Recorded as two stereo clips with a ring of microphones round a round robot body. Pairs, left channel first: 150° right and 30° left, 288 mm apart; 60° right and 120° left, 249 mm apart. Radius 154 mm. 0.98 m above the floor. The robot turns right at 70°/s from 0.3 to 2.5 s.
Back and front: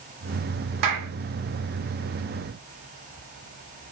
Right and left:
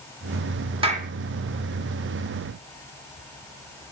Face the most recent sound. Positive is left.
turn(degrees=170)